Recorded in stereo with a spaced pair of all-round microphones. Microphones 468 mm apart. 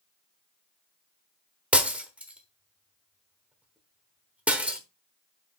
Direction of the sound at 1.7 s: 5° right (ahead or behind).